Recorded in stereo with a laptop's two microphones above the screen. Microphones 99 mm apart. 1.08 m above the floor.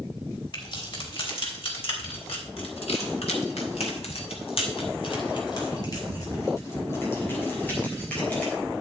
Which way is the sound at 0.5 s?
55° left (ahead or behind).